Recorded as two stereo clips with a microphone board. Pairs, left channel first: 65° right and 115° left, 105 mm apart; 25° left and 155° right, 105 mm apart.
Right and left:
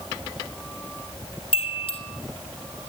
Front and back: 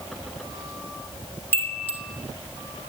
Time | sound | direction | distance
1.5 | a chime | 45° right | 4 m